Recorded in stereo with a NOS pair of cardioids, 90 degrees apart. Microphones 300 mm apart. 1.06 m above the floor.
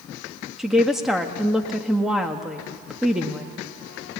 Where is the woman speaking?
Straight ahead, 1.7 m.